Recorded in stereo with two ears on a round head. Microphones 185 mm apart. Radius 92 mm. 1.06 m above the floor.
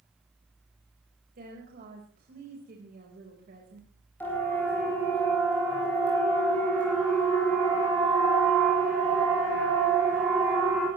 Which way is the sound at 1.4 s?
45° right (ahead or behind).